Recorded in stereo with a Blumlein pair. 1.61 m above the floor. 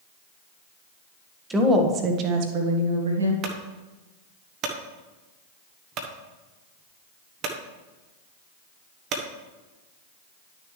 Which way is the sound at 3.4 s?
35° right.